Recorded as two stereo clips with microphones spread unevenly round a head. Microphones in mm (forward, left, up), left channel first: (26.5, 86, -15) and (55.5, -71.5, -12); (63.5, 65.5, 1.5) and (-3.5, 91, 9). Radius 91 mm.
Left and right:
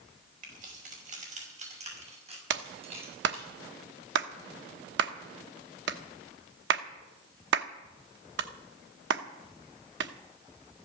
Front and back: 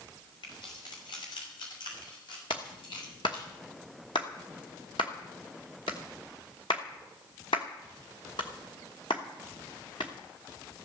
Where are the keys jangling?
45° right, 5.5 m; by 3.5 s 25° right, 8 m.